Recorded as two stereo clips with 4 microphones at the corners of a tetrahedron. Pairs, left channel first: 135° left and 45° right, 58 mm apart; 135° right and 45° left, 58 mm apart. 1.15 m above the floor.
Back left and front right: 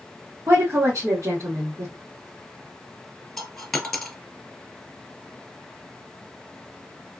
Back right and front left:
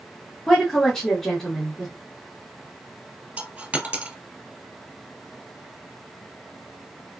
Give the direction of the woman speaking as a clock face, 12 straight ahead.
2 o'clock.